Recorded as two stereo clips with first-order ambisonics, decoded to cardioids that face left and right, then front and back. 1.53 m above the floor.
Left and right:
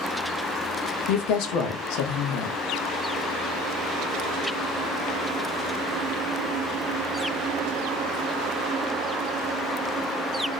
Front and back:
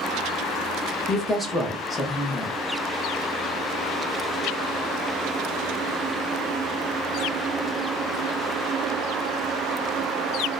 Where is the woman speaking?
80° left, 0.9 m.